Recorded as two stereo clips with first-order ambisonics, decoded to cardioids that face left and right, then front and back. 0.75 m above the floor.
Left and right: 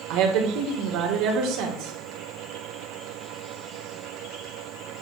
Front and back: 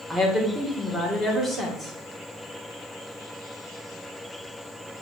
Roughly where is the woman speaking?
Right.